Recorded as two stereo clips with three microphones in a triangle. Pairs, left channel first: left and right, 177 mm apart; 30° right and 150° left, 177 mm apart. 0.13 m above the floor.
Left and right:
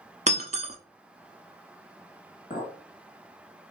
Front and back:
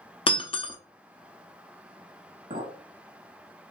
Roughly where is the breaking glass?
Right.